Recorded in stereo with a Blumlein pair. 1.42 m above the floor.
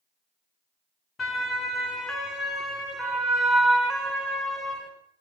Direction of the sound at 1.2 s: 15° left.